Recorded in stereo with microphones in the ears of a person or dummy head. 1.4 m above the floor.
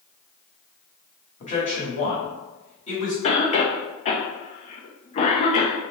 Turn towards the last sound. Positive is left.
turn(degrees=30)  # may be behind; listen again after turning